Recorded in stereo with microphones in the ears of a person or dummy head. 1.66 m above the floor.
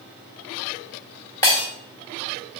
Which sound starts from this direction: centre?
Breaking glass, at 1.4 s.